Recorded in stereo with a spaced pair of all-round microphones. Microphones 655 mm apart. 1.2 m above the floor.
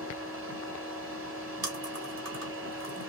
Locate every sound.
0.0 s a machine running: 20° right (ahead or behind), 1.7 m
1.6 s chewing: 55° right (ahead or behind), 1.4 m